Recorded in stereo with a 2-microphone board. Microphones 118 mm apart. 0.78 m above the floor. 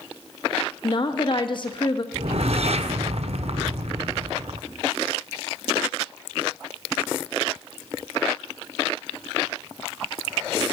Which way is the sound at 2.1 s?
65° right (ahead or behind).